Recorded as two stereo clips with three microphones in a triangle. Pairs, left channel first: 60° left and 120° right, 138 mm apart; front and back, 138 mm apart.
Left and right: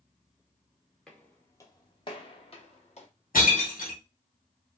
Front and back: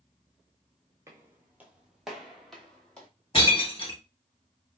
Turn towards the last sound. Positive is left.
turn(degrees=55)